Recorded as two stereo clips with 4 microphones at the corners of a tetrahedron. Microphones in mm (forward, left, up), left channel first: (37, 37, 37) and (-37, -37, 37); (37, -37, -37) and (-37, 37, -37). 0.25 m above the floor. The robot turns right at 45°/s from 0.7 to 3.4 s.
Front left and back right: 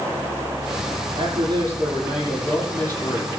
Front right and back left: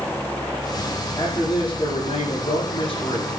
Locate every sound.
1.1 s a man speaking: 105° right, 8 m; by 3.3 s 10° right, 8 m